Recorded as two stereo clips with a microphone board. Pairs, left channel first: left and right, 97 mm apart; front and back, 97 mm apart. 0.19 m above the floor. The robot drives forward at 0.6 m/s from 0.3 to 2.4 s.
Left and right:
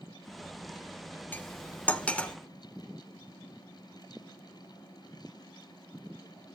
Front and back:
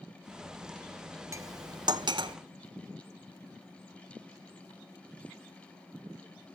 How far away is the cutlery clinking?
About 0.7 m.